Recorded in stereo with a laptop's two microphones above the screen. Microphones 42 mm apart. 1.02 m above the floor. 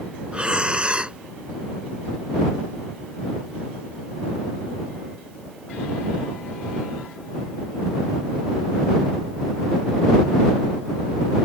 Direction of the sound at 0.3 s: 25° right (ahead or behind).